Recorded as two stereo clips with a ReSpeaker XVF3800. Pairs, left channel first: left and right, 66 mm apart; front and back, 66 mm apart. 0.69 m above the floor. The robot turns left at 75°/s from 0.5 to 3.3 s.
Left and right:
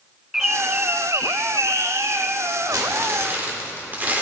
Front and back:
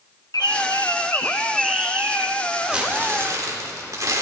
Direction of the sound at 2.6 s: 100° right.